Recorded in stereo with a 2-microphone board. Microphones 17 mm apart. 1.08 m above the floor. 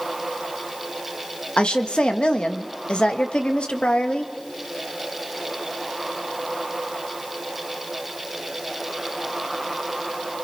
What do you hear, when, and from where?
1.6 s a woman speaking: 70° left (ahead or behind), 1.6 m